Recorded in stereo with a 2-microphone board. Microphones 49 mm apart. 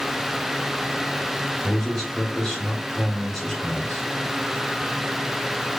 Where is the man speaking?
Centre (ahead or behind), 1.8 m.